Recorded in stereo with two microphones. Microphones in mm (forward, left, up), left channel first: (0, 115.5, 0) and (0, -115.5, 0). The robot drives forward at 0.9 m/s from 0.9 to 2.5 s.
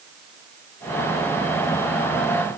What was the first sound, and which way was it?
Only background noise.